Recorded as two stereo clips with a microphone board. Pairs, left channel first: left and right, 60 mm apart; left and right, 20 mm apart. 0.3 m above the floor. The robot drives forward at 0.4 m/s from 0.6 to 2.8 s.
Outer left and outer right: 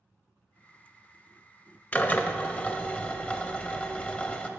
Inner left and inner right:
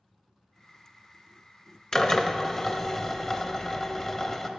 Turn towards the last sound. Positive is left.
turn(degrees=25)  # may be behind; listen again after turning